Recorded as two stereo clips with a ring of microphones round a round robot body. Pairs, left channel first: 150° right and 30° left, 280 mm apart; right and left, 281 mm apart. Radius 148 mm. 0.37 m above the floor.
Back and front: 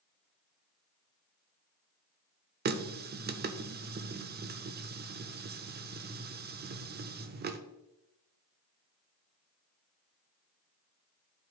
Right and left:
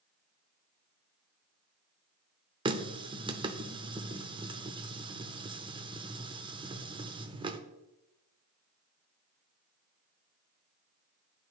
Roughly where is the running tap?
Ahead left.